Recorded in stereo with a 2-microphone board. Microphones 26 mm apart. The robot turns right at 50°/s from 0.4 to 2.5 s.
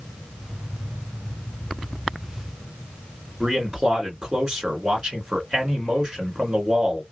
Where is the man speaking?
30° right (ahead or behind), 1.8 m.